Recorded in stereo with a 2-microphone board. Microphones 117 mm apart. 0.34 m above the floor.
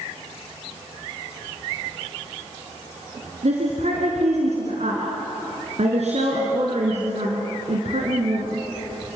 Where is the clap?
No clap in this recording.